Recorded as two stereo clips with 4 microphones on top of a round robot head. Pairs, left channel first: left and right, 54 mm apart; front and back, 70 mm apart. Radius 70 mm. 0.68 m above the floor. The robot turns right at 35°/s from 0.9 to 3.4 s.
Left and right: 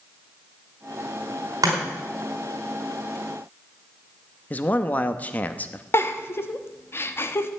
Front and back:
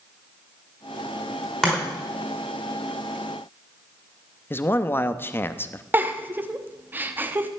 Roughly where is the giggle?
Behind left.